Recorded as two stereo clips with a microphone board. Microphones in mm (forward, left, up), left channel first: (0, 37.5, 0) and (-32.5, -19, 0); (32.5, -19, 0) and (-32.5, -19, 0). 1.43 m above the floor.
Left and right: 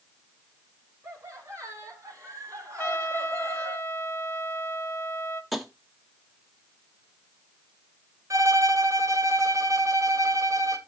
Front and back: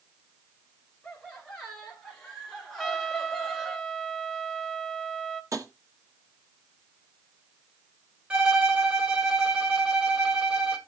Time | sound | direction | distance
1.0 | laughter | 75° right | 5 m
2.8 | a trumpet | 90° left | 1.2 m
5.5 | tapping | 150° left | 1.5 m
8.3 | a violin | 110° right | 1.9 m